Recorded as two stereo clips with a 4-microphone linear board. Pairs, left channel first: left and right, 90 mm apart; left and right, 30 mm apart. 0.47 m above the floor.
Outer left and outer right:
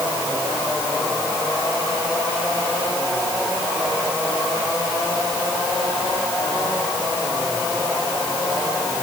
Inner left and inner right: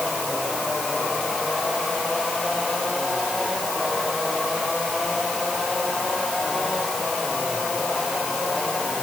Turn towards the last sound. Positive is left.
No sound to turn to.